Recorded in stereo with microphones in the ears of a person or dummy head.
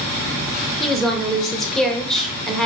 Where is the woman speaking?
5° left (ahead or behind), 0.6 m.